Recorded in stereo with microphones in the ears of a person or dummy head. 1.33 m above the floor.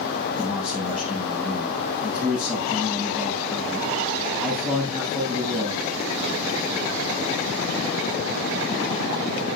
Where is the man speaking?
Centre (ahead or behind), 8 m.